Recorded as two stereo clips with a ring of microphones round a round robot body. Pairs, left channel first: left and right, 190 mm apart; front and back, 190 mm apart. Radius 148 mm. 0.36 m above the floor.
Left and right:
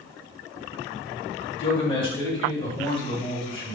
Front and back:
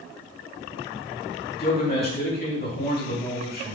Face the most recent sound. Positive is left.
turn(degrees=30)